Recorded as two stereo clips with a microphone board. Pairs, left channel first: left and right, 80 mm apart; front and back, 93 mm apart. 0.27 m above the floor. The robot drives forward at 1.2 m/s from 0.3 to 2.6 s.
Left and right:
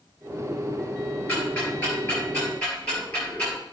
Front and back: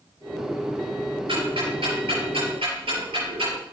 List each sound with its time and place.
1.3 s ticking: 160° left, 4 m; by 3.6 s 165° left, 5.5 m